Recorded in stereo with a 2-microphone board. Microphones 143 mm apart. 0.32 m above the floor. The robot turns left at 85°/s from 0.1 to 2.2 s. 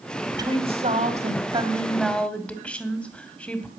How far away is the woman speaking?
About 2 m.